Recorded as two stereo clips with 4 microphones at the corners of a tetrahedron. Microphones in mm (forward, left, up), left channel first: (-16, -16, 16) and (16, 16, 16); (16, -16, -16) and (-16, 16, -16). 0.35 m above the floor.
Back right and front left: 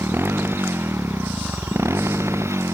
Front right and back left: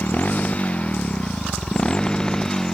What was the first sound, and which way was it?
A motorcycle, 10° left.